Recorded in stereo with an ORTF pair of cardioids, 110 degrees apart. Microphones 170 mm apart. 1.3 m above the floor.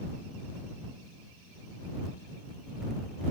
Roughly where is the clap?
I don't hear a clap.